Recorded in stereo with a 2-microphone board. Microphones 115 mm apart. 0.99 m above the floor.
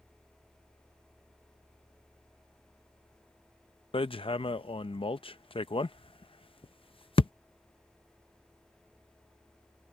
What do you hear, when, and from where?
3.9 s hammering: 50° left (ahead or behind)